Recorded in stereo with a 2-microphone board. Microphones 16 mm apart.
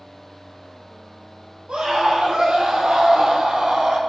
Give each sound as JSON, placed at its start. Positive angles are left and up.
{"t": 1.7, "sound": "a scream", "side_deg": -80, "distance_m": 7.0}